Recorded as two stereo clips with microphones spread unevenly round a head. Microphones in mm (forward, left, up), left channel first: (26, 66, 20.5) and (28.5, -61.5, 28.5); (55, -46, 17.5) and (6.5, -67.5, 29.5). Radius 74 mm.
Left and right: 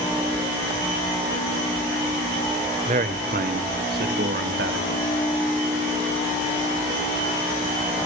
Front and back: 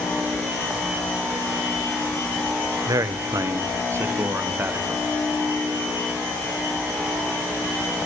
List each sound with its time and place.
2.9 s a man speaking: 135° right, 1.2 m; by 5.1 s 105° right, 2.5 m